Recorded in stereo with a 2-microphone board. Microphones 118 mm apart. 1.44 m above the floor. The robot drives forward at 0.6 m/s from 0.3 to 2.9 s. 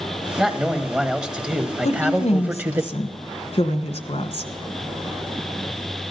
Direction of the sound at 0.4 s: 5° right (ahead or behind).